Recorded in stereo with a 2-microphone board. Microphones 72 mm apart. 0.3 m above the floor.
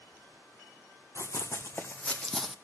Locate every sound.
1.1 s running footsteps: 40° left (ahead or behind), 1.2 m; by 2.5 s 5° right (ahead or behind), 0.6 m